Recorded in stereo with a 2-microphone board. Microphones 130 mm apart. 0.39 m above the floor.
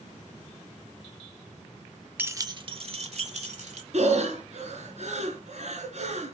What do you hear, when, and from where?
2.2 s keys jangling: 15° right (ahead or behind), 0.6 m; by 3.8 s 70° right (ahead or behind), 1.5 m
3.9 s breathing: 60° right (ahead or behind), 2.5 m